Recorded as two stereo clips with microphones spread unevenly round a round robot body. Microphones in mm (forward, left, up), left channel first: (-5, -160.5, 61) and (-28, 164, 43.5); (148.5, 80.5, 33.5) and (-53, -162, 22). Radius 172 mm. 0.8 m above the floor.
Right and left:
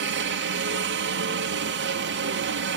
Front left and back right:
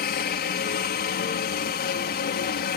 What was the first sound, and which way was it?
A helicopter, 90° left.